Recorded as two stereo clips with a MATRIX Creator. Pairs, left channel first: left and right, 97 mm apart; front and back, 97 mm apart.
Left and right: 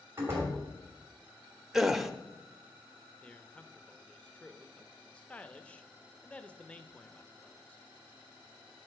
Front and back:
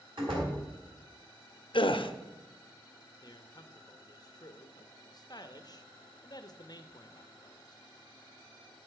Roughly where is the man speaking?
Ahead.